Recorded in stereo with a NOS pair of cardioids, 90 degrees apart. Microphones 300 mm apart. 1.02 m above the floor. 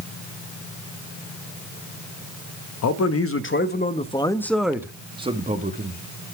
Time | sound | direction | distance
2.8 | a man speaking | 60° left | 1.2 m